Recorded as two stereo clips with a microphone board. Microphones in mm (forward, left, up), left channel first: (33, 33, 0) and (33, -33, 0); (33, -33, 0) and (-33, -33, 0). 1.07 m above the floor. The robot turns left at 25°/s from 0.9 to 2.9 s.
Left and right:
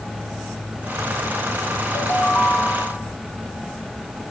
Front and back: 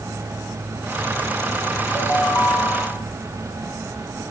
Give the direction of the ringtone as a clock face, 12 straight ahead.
10 o'clock.